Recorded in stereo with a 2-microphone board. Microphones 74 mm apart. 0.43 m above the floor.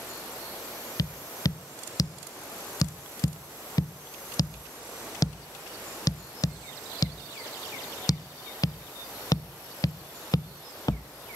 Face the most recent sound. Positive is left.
turn(degrees=55)  # may be behind; listen again after turning